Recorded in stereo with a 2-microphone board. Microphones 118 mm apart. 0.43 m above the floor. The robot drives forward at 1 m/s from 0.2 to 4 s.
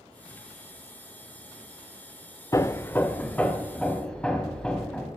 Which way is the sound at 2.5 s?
25° left (ahead or behind).